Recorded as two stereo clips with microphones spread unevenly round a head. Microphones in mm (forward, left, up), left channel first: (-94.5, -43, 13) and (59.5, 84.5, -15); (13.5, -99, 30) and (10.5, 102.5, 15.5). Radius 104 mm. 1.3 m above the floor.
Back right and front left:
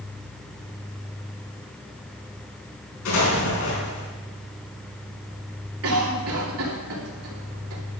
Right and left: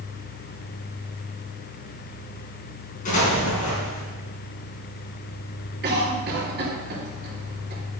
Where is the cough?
50° left, 2.5 m.